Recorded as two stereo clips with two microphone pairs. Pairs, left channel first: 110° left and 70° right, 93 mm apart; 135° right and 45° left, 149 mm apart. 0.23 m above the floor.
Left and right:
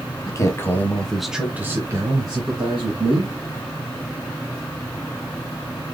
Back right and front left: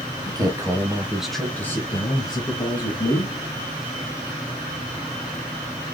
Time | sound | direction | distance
0.3 | a man speaking | 90° left | 1.2 m